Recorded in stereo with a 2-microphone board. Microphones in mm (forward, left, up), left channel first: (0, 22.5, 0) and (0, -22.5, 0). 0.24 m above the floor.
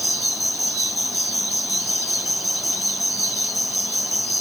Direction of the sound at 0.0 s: Centre (ahead or behind).